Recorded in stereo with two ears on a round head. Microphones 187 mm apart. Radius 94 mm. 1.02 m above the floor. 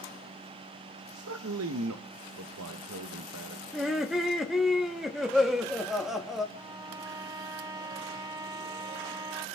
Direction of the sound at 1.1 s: 80° right.